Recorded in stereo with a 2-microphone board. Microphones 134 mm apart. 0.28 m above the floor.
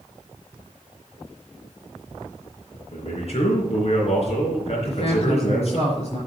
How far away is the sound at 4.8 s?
About 4.5 m.